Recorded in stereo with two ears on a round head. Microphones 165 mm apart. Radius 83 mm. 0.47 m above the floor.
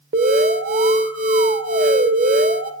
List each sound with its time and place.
0.1 s an alarm: 45° right (ahead or behind), 1.9 m